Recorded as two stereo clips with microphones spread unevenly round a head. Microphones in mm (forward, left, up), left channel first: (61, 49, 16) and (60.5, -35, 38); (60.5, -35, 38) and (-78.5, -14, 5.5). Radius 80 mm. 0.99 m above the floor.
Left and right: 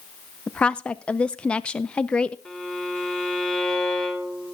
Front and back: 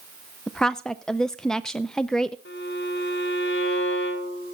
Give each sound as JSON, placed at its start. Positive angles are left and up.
{"t": 0.5, "sound": "a woman speaking", "azimuth_deg": 100, "distance_m": 0.5}
{"t": 2.5, "sound": "a violin", "azimuth_deg": 10, "distance_m": 3.5}